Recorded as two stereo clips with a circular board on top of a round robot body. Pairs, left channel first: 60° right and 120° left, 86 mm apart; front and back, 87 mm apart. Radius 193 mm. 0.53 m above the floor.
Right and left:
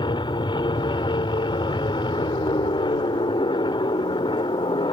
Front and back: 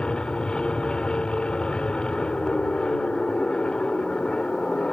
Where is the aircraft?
80° right.